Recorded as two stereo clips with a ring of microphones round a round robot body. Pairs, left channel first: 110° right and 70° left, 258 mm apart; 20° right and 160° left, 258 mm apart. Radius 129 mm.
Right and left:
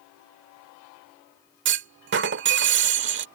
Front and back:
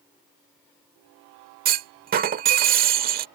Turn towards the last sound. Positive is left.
turn(degrees=105)